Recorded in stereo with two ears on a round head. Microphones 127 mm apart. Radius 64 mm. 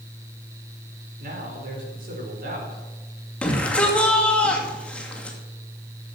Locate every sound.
1.2 s a man speaking: 70° right (ahead or behind), 4.5 m
3.4 s a shout: 10° left (ahead or behind), 2.5 m